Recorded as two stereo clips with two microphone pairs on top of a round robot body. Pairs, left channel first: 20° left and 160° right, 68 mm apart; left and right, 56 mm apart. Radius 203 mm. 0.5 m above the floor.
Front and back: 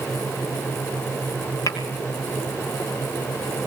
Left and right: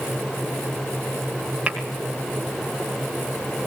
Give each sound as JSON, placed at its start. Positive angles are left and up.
{"t": 1.7, "sound": "tapping", "azimuth_deg": -10, "distance_m": 2.5}